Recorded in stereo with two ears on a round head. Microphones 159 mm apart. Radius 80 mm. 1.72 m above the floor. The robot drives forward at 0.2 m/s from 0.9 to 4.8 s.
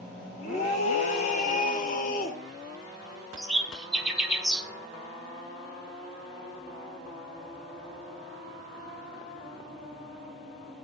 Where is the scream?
40° left (ahead or behind), 1.2 m; by 2.4 s 50° left (ahead or behind), 1.0 m.